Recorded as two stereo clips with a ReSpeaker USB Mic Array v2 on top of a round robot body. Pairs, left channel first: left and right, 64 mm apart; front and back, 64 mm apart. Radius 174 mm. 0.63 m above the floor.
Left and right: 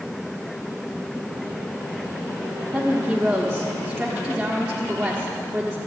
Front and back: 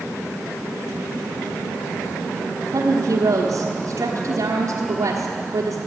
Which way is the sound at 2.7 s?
175° right.